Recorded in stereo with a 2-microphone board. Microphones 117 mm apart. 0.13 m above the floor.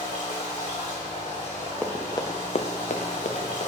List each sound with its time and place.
0.0 s running water: 80° left, 3 m
1.8 s running footsteps: 10° left (ahead or behind), 1.2 m; by 3.7 s 60° left (ahead or behind), 1.8 m